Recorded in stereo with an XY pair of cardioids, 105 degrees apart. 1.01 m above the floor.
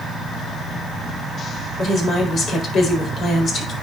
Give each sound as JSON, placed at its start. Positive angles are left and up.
{"t": 1.8, "sound": "a woman speaking", "azimuth_deg": 50, "distance_m": 4.0}